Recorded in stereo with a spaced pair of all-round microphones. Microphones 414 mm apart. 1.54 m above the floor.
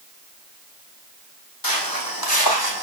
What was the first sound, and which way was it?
Footsteps, 55° left (ahead or behind).